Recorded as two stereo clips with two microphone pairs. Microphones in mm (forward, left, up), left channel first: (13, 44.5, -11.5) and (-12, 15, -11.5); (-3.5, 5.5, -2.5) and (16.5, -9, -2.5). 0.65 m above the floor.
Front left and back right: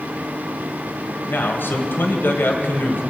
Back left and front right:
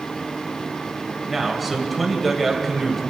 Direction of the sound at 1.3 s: 60° left.